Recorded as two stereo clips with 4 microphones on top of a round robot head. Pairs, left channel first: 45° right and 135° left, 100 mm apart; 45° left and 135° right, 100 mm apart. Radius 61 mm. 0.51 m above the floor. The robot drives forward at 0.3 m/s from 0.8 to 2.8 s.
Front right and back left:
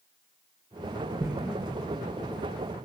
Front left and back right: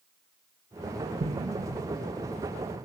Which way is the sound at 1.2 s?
155° right.